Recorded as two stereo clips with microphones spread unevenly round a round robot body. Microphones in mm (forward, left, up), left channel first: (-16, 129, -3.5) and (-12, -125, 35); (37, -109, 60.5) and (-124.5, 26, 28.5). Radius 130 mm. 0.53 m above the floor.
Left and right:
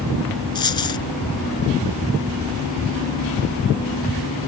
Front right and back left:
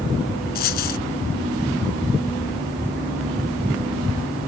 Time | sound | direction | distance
0.6 | a dropped coin | 15° left | ?